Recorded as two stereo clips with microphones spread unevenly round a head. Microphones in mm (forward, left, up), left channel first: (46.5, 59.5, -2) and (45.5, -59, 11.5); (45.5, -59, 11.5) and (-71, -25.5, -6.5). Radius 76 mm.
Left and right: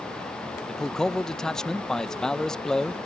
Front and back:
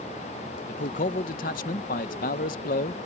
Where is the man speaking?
10° left.